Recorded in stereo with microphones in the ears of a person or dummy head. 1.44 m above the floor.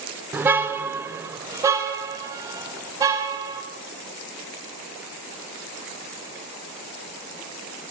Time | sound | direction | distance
0.3 | a car horn | 10° right (ahead or behind) | 2 m